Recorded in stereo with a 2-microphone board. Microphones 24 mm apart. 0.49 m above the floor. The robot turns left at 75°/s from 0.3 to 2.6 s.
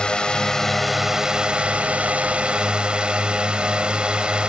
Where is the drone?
45° left; by 4.5 s 130° right.